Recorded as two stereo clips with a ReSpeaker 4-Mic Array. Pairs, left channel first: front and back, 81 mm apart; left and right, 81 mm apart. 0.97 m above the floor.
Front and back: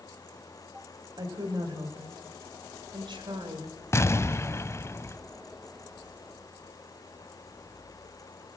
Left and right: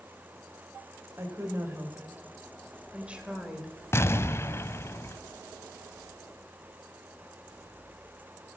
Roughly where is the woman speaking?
Behind right.